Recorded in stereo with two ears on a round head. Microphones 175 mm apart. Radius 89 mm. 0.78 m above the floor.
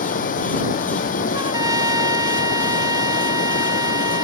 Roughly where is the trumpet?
Right.